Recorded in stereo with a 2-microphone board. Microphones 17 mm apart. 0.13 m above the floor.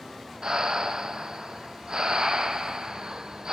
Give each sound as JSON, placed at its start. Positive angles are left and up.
{"t": 0.4, "sound": "breathing", "side_deg": -55, "distance_m": 0.7}